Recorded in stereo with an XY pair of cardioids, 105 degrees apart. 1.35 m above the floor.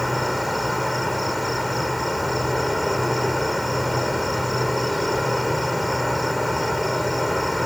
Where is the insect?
10° left.